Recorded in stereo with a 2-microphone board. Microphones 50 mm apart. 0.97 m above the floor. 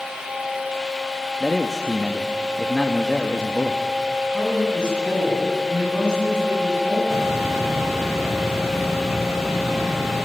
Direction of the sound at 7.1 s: 75° right (ahead or behind).